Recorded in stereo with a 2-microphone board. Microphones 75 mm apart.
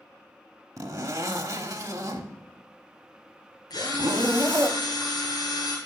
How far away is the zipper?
About 1.0 m.